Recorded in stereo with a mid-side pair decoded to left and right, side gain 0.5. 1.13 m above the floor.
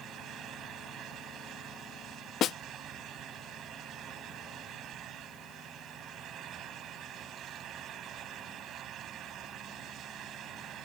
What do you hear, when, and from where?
0.0 s a fan: 65° right
2.4 s a snare drum: 60° left